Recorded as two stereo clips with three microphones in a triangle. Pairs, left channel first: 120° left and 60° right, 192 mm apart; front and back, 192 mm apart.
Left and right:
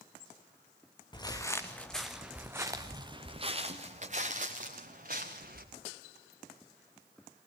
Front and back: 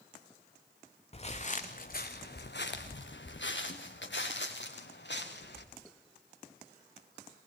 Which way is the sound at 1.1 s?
55° left.